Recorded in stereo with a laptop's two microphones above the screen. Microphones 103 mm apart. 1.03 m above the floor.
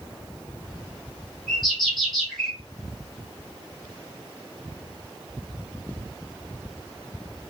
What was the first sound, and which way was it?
A bird, centre (ahead or behind).